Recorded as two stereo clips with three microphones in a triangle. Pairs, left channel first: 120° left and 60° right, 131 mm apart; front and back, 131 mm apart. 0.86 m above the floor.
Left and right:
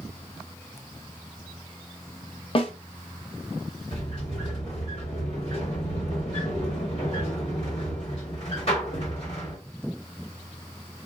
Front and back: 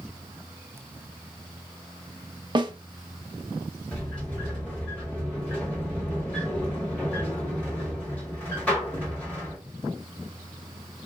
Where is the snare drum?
140° left, 0.5 m.